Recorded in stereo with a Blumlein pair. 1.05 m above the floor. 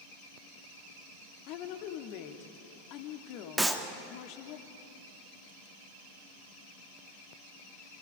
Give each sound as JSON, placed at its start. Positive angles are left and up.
{"t": 1.5, "sound": "a woman speaking", "azimuth_deg": 40, "distance_m": 2.5}
{"t": 3.6, "sound": "a clap", "azimuth_deg": -5, "distance_m": 1.6}